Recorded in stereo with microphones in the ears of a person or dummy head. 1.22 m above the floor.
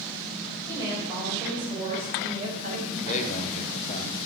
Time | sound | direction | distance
0.7 | a woman speaking | 20° right (ahead or behind) | 5 m
3.0 | a man speaking | 35° left (ahead or behind) | 0.9 m